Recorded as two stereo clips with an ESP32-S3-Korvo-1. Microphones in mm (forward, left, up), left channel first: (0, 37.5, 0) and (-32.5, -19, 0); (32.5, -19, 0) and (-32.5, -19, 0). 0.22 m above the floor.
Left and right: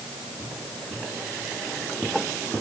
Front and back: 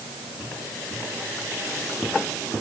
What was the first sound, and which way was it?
Only background noise.